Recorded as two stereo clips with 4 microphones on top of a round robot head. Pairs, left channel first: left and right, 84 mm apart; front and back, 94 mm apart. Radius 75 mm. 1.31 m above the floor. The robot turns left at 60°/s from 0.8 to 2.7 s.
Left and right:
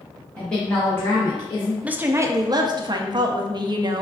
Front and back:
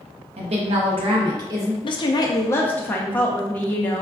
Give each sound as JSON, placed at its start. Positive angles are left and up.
{"t": 0.4, "sound": "a woman speaking", "azimuth_deg": 170, "distance_m": 0.8}
{"t": 1.8, "sound": "a woman speaking", "azimuth_deg": -15, "distance_m": 0.6}